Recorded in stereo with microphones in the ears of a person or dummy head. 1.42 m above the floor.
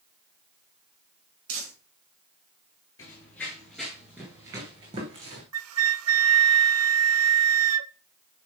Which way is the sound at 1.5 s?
80° right.